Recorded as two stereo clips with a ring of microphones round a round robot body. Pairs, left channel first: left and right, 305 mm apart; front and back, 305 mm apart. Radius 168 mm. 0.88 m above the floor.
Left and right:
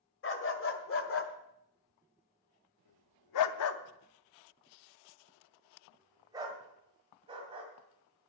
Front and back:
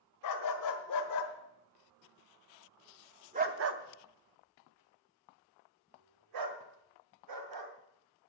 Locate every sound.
0.2 s a dog barking: 40° left, 1.9 m; by 7.7 s 165° right, 2.5 m